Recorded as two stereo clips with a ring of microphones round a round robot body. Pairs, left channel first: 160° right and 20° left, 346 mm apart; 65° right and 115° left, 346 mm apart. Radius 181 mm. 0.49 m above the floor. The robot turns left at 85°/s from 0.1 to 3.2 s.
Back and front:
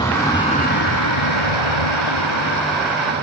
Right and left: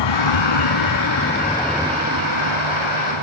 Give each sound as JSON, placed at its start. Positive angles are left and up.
{"t": 0.0, "sound": "a vehicle", "azimuth_deg": -80}